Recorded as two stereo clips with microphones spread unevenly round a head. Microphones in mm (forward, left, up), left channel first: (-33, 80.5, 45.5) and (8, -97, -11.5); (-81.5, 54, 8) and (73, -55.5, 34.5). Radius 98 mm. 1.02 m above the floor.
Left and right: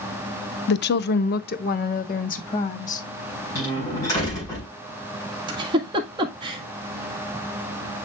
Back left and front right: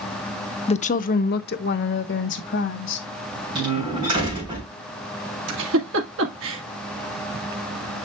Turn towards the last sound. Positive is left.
turn(degrees=-15)